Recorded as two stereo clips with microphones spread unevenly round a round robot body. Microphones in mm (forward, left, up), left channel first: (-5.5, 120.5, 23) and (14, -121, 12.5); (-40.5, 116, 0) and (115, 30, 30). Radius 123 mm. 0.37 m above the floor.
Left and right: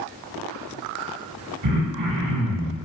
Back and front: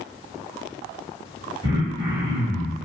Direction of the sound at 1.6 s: 100° right.